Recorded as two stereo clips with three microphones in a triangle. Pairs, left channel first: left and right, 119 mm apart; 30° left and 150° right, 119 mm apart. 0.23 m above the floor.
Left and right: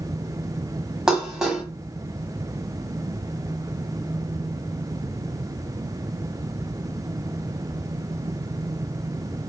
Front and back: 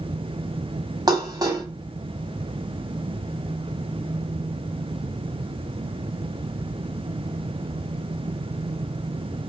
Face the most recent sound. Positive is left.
turn(degrees=-170)